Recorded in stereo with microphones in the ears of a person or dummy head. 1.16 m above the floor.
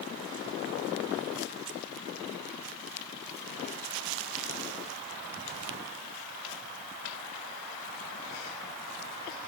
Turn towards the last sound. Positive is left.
No sound to turn to.